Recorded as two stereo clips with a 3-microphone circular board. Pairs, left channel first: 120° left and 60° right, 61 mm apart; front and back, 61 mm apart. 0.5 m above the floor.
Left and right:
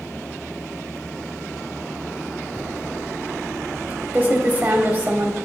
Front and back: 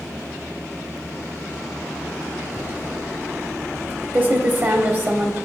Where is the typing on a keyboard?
120° right, 1.0 m.